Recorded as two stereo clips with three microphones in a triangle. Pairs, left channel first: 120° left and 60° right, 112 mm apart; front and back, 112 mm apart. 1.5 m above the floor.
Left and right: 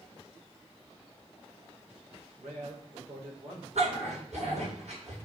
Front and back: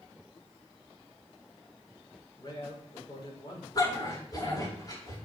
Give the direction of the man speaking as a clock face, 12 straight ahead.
2 o'clock.